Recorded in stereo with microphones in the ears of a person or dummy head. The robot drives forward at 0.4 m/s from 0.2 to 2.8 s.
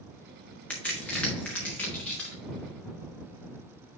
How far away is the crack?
About 1.6 m.